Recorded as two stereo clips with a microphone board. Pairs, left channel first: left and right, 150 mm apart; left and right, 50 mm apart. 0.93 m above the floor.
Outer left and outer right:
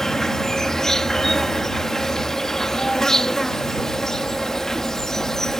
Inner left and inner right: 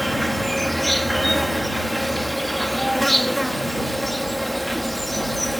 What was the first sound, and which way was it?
An insect, centre (ahead or behind).